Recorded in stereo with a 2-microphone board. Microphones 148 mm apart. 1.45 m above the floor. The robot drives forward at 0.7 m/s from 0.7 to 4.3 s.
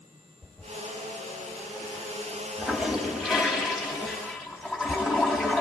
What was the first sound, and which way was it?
A toilet flushing, centre (ahead or behind).